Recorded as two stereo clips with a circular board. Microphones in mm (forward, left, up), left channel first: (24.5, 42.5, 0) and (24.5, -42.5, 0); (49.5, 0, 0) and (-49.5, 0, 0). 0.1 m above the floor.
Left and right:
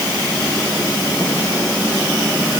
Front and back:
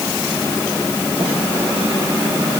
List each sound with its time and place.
Only background noise.